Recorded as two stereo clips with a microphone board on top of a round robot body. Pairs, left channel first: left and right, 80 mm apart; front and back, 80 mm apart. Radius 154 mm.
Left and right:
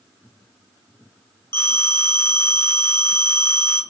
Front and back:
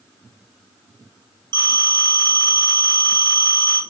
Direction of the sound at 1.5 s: 145° left.